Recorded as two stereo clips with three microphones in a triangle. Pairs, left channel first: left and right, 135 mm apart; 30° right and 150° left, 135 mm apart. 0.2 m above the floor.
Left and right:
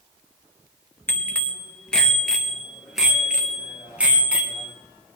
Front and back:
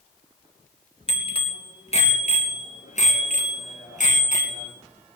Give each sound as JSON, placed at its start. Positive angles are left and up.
{"t": 1.1, "sound": "a bicycle bell", "azimuth_deg": 15, "distance_m": 2.5}